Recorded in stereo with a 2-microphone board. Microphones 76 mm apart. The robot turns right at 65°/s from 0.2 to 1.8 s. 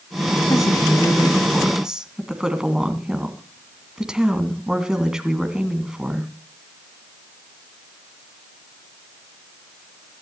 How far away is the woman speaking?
About 2 m.